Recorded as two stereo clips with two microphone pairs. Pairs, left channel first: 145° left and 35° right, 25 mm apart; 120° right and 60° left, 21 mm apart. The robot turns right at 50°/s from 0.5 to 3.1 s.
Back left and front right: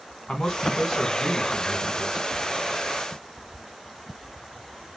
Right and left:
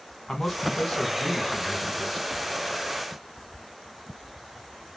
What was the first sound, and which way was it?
A man speaking, 170° right.